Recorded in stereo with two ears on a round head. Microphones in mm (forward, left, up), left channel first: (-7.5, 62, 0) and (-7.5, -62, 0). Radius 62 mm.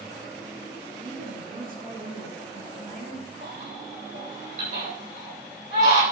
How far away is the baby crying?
About 9 m.